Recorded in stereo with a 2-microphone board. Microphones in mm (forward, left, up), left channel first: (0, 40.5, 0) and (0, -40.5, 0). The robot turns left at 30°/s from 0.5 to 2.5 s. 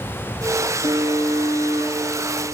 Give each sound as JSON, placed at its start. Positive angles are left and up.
{"t": 0.8, "sound": "an alarm", "azimuth_deg": -85, "distance_m": 4.0}